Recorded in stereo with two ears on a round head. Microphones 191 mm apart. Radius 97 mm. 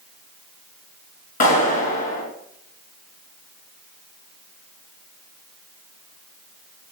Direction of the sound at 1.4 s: 45° left (ahead or behind).